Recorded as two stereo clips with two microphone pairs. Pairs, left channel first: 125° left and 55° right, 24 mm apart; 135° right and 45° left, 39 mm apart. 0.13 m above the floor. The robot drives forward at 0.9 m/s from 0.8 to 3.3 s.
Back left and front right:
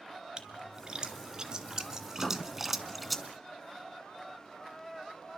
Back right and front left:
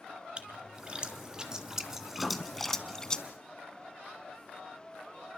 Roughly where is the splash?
Ahead.